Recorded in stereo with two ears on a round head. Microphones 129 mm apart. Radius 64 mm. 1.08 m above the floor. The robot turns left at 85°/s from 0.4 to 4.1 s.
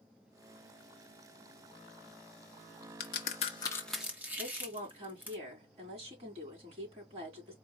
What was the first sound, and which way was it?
A crack, 70° left (ahead or behind).